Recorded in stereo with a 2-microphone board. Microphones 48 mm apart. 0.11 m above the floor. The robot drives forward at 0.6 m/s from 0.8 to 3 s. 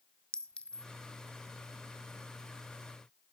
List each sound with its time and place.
0.3 s a clink: 20° left (ahead or behind), 0.8 m